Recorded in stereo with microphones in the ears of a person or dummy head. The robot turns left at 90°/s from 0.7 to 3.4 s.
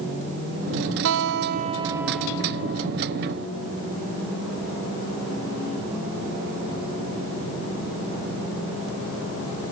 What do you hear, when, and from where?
1.1 s a guitar: 85° right; by 2.9 s 110° left